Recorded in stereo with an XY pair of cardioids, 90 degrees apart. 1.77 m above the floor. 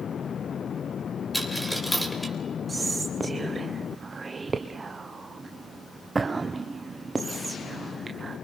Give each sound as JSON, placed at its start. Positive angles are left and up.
{"t": 1.3, "sound": "a dropped coin", "azimuth_deg": 0, "distance_m": 3.5}
{"t": 2.7, "sound": "whispering", "azimuth_deg": -35, "distance_m": 1.2}